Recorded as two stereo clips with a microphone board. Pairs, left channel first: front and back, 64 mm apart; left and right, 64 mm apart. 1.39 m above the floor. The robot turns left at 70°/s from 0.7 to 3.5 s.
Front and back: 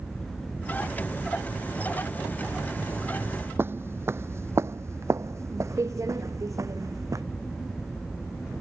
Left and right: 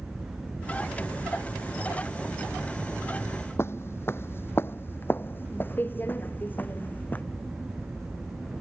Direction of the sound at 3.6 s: 130° left.